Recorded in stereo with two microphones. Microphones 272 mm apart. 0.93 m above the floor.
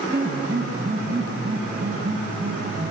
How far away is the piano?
About 1.2 m.